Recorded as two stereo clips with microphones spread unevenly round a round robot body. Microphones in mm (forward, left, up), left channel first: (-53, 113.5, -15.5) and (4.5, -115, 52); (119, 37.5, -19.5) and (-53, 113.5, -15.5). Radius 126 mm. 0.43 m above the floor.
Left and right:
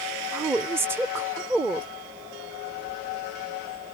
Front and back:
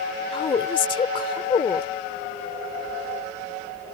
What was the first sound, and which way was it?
A woman speaking, 20° left.